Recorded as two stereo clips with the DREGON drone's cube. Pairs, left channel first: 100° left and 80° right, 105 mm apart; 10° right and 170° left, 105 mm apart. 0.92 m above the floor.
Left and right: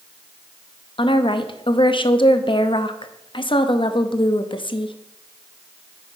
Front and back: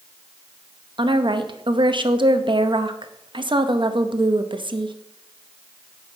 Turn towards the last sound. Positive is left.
turn(degrees=130)